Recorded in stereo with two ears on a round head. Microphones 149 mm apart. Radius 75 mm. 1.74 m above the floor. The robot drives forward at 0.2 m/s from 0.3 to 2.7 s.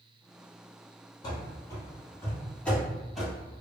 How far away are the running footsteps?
About 2.0 m.